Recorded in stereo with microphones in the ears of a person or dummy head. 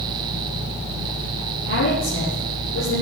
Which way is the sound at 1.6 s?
70° left (ahead or behind).